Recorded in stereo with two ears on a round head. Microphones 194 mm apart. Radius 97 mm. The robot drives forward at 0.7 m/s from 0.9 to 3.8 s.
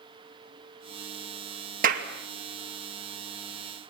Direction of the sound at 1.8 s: 40° right (ahead or behind).